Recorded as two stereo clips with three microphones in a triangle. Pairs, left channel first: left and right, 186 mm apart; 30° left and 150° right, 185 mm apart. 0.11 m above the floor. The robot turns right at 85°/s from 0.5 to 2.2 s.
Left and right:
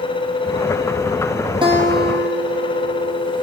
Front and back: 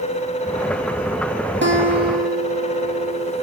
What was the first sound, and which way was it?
A guitar, 155° right.